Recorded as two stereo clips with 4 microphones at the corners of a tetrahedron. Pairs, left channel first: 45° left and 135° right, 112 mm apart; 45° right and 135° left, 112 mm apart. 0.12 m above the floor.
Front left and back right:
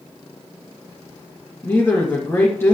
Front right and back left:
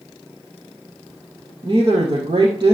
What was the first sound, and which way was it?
A woman speaking, 110° left.